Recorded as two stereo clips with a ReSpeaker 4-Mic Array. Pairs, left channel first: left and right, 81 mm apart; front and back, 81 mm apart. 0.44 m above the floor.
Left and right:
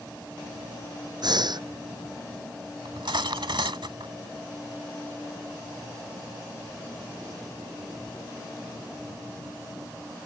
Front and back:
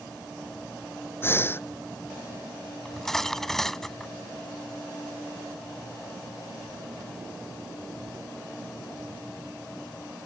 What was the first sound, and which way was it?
Breathing, 60° right.